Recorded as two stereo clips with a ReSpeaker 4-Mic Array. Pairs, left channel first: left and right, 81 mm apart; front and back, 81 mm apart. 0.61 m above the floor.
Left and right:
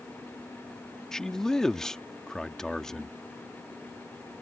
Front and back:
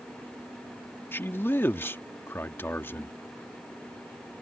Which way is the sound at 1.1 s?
15° left.